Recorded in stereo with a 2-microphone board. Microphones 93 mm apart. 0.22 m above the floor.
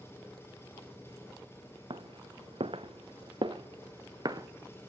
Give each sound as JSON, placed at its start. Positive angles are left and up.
{"t": 0.0, "sound": "an engine running", "side_deg": 25, "distance_m": 7.0}
{"t": 1.9, "sound": "footsteps", "side_deg": -60, "distance_m": 1.2}